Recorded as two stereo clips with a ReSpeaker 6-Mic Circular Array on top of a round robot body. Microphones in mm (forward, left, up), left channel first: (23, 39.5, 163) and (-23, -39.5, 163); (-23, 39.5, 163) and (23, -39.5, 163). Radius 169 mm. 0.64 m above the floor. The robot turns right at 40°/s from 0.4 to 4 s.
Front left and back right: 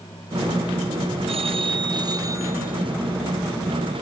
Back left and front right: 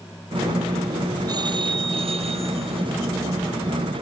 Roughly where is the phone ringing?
Right.